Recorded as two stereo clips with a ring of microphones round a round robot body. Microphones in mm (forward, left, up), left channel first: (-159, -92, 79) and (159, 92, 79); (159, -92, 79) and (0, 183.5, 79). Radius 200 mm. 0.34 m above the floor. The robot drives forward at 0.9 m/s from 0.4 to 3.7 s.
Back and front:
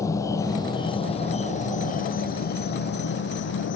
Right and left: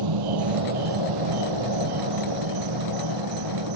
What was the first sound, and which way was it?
An insect, 130° left.